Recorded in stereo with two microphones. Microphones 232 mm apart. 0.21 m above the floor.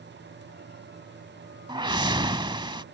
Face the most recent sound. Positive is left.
turn(degrees=-20)  # may be behind; listen again after turning